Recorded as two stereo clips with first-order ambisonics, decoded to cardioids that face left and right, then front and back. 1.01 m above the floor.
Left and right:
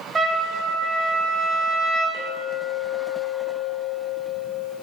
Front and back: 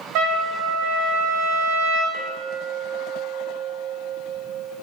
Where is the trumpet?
160° right, 0.7 m.